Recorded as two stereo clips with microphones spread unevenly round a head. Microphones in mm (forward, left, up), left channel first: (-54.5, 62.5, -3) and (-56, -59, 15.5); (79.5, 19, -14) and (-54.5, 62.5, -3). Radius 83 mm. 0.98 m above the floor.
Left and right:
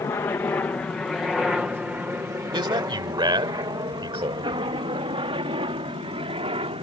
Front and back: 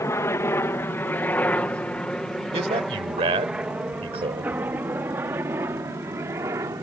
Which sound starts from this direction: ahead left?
A helicopter, at 0.0 s.